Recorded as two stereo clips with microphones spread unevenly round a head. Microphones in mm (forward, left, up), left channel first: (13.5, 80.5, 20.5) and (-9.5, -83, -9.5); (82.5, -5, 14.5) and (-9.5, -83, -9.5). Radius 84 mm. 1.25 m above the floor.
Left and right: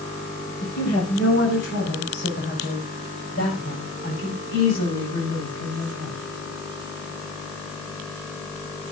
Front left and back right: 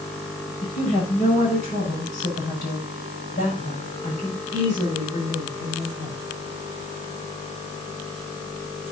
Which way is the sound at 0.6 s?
55° left.